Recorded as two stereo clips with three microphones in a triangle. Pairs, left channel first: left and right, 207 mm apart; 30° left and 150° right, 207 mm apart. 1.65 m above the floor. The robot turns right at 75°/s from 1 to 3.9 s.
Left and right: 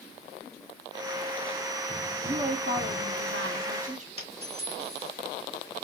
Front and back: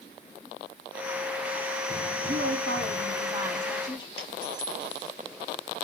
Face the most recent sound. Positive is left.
turn(degrees=-145)